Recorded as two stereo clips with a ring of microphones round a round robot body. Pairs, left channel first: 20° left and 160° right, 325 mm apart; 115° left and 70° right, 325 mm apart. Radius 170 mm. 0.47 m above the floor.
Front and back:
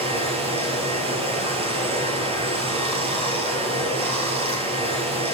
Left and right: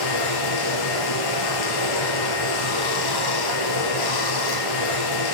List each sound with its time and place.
0.0 s running water: 130° left, 3.5 m